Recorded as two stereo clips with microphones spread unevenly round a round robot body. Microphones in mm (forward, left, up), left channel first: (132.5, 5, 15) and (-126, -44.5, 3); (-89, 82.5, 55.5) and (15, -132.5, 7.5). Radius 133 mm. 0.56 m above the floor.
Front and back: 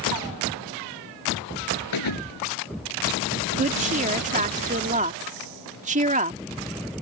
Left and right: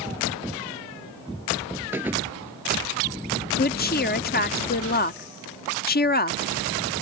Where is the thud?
20° left.